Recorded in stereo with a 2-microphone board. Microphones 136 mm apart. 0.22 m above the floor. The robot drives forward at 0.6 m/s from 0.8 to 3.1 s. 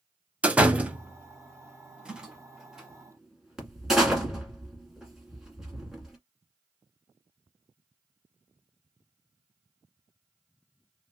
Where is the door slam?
10° right (ahead or behind), 0.6 m; by 6.2 s 5° right (ahead or behind), 1.3 m.